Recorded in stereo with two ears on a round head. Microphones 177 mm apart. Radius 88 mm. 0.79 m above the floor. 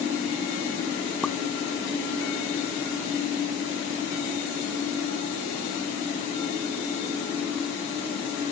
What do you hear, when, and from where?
1.2 s a pop: 5° left (ahead or behind)